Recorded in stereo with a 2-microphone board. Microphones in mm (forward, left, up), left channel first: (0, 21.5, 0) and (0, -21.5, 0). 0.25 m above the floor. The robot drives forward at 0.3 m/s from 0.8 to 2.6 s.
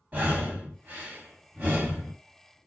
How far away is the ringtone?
No ringtone in this recording.